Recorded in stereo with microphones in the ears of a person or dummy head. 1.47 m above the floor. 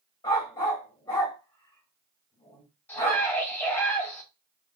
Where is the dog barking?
20° left (ahead or behind), 1.5 m.